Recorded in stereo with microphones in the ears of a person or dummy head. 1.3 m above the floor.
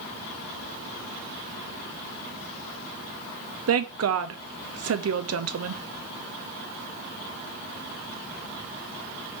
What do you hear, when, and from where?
3.7 s a woman speaking: 65° right (ahead or behind), 0.6 m